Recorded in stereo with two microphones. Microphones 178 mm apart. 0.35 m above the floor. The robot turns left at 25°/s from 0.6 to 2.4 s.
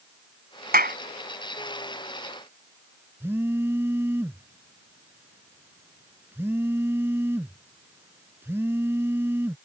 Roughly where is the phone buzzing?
Centre.